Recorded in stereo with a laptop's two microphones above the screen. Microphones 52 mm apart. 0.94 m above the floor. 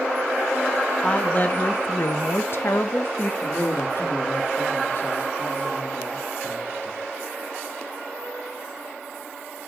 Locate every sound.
1.0 s a woman speaking: 25° left (ahead or behind), 1.3 m; by 3.3 s 45° left (ahead or behind), 1.0 m
3.4 s a man speaking: 50° left (ahead or behind), 1.5 m